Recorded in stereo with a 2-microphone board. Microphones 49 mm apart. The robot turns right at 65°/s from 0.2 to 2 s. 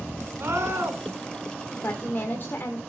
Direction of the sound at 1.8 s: 55° left (ahead or behind).